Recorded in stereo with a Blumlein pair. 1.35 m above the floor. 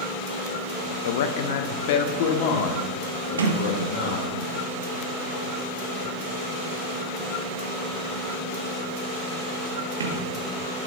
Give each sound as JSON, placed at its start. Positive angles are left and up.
{"t": 1.1, "sound": "a man speaking", "azimuth_deg": 60, "distance_m": 0.6}
{"t": 3.4, "sound": "a sliding door", "azimuth_deg": -70, "distance_m": 1.1}